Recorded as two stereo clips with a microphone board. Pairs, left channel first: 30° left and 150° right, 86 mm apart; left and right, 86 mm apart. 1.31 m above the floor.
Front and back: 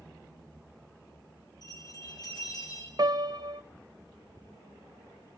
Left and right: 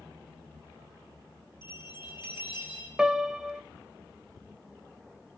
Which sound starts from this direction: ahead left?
A bell, at 1.6 s.